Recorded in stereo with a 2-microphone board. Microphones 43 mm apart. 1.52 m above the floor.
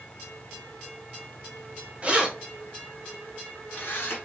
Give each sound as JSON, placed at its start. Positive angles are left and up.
{"t": 2.0, "sound": "keys jangling", "side_deg": -30, "distance_m": 1.0}